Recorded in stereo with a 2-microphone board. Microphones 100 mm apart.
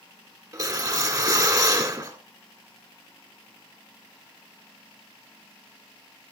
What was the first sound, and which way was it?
A whoosh, 35° right (ahead or behind).